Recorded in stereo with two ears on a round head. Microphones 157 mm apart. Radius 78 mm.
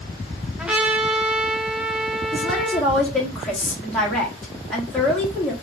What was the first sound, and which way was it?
A trumpet, 5° right (ahead or behind).